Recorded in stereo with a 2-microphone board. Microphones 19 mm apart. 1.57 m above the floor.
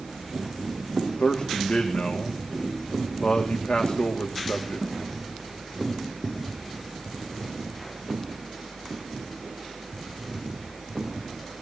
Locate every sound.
1.2 s a man speaking: 75° left (ahead or behind), 2 m